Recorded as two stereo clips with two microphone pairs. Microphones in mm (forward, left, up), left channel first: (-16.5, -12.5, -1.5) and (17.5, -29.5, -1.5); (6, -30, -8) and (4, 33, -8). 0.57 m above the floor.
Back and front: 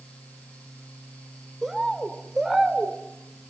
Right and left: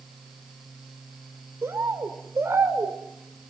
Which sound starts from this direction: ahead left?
A bird, at 1.6 s.